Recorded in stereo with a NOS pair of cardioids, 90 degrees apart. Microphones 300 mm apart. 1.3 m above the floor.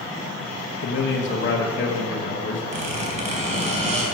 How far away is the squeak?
About 3 m.